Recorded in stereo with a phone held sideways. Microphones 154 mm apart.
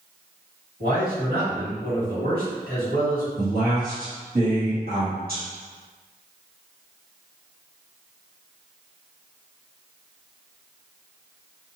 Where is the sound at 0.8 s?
70° right (ahead or behind), 1.9 m.